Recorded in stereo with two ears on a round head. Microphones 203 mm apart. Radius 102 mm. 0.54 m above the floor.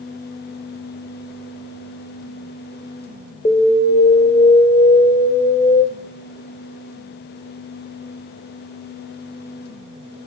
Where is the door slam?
No door slam in this recording.